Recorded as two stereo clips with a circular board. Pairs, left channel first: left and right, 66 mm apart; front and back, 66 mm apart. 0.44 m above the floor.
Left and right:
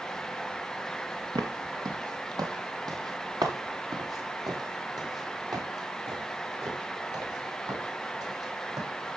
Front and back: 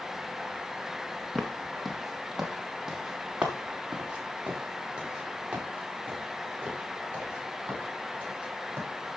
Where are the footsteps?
85° right, 2.5 m; by 8.9 s 120° right, 9 m.